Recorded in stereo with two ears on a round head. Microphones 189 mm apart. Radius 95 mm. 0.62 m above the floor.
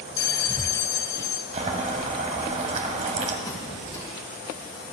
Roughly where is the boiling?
Right.